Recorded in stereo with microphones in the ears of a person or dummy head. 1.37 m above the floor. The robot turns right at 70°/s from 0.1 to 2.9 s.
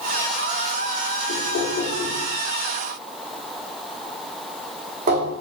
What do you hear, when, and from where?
1.3 s knocking: 70° left (ahead or behind), 1.1 m; by 5.3 s 45° right (ahead or behind), 1.1 m